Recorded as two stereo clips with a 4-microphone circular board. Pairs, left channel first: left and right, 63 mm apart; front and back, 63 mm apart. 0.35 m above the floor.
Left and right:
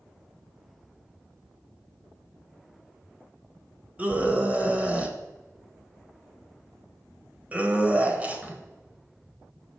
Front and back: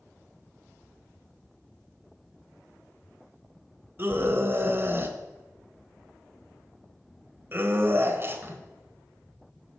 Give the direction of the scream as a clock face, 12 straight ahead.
5 o'clock.